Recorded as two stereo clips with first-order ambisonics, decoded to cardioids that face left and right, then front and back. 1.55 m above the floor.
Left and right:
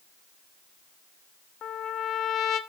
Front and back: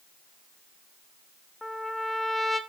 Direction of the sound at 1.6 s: 85° left.